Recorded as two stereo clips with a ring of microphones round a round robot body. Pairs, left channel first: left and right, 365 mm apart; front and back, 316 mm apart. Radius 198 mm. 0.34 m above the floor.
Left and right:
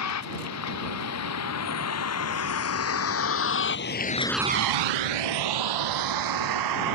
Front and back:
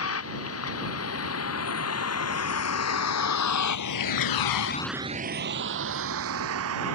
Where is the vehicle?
45° left; by 6.9 s 125° right.